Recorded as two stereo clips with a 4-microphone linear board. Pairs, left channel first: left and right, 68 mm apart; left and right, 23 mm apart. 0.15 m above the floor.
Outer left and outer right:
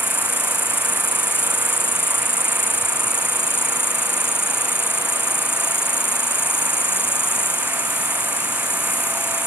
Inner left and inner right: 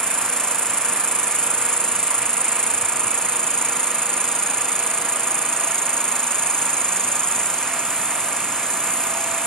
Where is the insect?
30° left (ahead or behind), 1.9 m.